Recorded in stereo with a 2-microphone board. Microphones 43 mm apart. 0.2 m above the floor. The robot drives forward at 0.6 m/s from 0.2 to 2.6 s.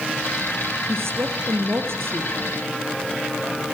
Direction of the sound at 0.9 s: 75° right (ahead or behind).